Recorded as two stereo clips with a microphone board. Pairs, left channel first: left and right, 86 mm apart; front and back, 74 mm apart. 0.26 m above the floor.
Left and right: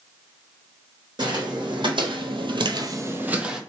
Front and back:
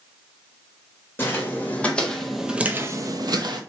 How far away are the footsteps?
About 1.1 m.